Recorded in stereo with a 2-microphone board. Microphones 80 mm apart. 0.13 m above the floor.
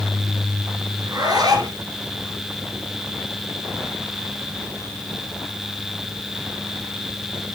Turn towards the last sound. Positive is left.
turn(degrees=-55)  # may be behind; listen again after turning